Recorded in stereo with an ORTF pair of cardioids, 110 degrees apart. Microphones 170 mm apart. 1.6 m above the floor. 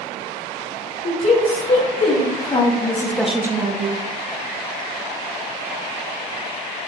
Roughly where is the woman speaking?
Ahead left.